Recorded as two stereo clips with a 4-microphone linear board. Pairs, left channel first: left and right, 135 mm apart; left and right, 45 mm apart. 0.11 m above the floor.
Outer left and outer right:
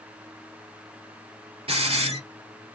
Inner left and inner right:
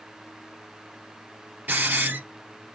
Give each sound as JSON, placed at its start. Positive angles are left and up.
{"t": 1.7, "sound": "a hiss", "side_deg": -50, "distance_m": 2.5}